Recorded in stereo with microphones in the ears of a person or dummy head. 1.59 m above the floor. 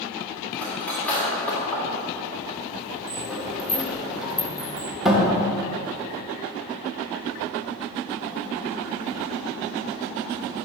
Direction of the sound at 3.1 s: 5° right (ahead or behind).